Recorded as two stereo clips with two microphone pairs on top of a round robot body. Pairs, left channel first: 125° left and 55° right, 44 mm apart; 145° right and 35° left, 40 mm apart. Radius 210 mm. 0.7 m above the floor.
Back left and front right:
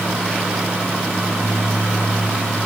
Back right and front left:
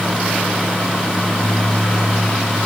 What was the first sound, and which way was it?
Only background noise.